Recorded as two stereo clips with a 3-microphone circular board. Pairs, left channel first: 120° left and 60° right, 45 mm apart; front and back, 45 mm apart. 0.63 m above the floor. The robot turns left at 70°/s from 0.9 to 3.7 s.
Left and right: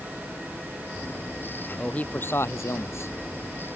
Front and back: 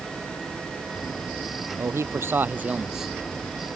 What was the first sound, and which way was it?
A man speaking, 175° right.